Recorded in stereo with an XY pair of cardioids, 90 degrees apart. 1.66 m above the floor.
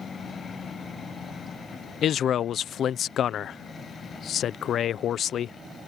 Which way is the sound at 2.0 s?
70° left.